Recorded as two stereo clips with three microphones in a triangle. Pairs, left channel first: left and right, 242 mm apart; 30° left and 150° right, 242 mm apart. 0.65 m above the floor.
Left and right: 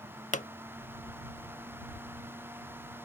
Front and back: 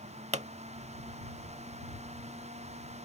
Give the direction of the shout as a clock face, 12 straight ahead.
I don't hear a shout.